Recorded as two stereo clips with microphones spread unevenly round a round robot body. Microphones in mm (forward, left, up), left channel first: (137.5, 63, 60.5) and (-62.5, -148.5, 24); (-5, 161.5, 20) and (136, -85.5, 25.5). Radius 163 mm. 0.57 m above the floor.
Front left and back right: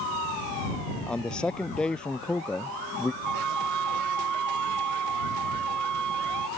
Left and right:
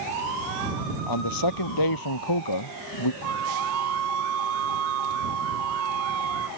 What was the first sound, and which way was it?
A man speaking, 135° left.